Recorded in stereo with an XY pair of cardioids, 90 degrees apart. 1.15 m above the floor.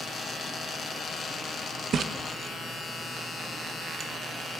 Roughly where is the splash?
Ahead right.